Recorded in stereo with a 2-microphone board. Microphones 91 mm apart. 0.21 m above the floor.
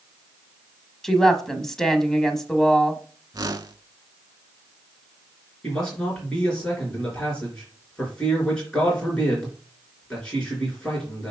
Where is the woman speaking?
5° left (ahead or behind), 1.0 m.